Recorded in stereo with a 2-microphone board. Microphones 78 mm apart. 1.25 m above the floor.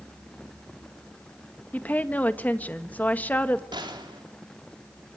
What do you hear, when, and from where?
1.7 s a woman speaking: 20° left (ahead or behind), 1.5 m
3.7 s a gunshot: 80° right, 3.5 m